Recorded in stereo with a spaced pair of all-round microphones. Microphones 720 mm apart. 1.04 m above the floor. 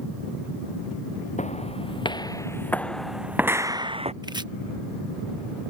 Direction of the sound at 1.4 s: 10° left (ahead or behind).